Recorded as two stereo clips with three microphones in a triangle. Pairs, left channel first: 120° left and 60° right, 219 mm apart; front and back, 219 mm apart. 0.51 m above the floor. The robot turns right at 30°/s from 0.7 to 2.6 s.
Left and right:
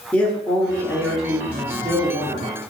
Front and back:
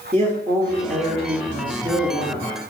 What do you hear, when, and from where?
0.1 s a man speaking: 160° right, 1.0 m; by 2.6 s 105° right, 1.0 m